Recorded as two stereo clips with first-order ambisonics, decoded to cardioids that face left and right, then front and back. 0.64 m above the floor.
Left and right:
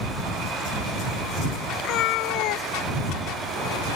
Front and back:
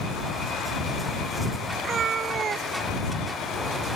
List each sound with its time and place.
1.8 s a cat meowing: 115° left